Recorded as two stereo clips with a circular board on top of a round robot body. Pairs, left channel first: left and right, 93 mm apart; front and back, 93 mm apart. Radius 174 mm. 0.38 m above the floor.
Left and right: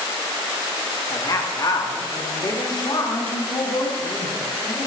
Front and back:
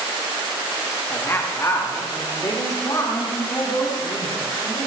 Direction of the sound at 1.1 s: 60° left.